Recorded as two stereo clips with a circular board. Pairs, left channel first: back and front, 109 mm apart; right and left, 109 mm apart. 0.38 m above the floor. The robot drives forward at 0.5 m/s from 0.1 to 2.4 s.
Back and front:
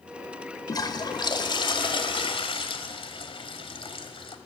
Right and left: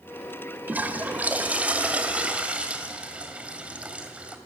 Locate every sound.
0.7 s a toilet flushing: 155° left, 1.6 m; by 4.3 s 165° left, 2 m